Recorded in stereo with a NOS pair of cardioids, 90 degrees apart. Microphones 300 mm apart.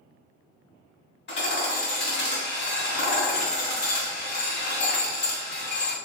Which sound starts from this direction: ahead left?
Hammering, at 1.3 s.